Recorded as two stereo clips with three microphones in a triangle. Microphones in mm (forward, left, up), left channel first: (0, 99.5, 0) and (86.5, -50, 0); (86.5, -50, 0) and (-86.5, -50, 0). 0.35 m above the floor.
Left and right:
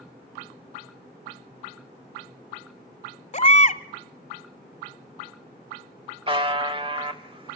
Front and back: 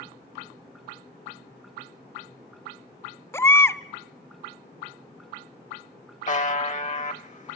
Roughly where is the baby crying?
Left.